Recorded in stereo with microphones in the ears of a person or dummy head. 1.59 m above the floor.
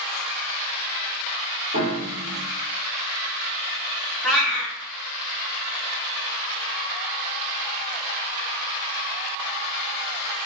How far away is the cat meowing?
About 1.8 m.